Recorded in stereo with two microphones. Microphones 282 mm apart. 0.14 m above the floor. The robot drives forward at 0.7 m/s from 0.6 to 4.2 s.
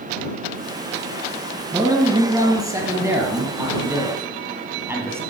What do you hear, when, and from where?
1.7 s a man speaking: 10° right (ahead or behind), 2.5 m; by 5.2 s 5° right (ahead or behind), 4 m